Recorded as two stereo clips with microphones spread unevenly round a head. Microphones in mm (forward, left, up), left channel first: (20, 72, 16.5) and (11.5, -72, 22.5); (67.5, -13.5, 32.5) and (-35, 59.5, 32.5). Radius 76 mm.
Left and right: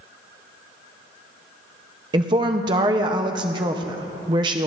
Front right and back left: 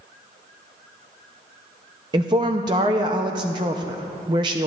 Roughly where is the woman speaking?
Behind right.